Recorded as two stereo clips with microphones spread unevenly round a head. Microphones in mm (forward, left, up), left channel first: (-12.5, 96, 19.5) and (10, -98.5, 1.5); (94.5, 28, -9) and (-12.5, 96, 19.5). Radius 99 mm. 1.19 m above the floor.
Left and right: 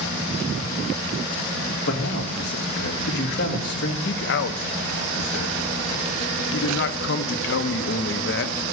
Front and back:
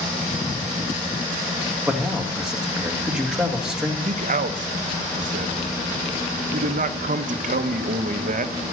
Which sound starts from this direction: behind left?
A man speaking, at 4.0 s.